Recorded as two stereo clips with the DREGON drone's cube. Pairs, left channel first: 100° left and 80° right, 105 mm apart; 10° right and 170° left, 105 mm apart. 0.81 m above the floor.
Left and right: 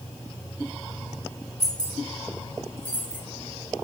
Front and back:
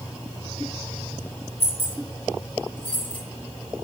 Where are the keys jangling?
15° left, 2.5 m; by 3.2 s 30° left, 1.6 m.